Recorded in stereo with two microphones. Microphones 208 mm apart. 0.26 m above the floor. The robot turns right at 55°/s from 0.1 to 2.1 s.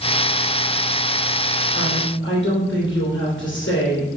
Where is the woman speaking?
60° left (ahead or behind), 2.5 m; by 4.1 s 70° left (ahead or behind), 2.5 m.